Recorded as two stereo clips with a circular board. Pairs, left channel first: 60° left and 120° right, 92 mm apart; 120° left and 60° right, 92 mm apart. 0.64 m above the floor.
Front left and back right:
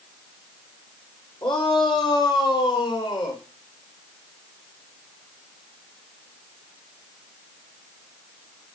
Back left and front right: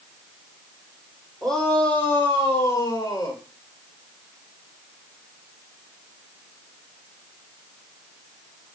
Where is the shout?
35° left, 2 m; by 3.4 s 80° left, 3 m.